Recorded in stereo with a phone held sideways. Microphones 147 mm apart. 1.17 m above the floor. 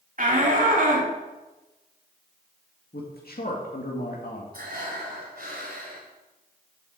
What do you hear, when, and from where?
0.2 s a shout: 60° right (ahead or behind), 2.5 m
2.9 s a man speaking: 80° left, 1.9 m
4.5 s breathing: 75° right (ahead or behind), 2.5 m